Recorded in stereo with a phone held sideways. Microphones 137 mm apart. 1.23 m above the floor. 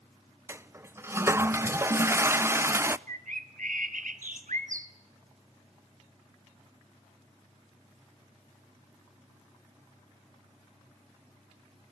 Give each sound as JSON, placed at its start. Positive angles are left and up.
{"t": 0.5, "sound": "a toilet flushing", "side_deg": -20, "distance_m": 0.5}
{"t": 3.1, "sound": "a bird", "side_deg": -80, "distance_m": 1.6}